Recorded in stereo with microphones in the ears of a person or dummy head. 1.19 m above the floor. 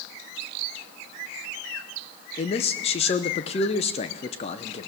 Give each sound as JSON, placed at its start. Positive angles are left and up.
{"t": 2.4, "sound": "a man speaking", "side_deg": 35, "distance_m": 0.6}